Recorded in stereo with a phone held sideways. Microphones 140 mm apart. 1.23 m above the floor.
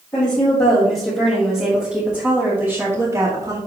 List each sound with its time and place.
0.1 s a woman speaking: 25° left (ahead or behind), 3.5 m; by 3.6 s 30° right (ahead or behind), 2.5 m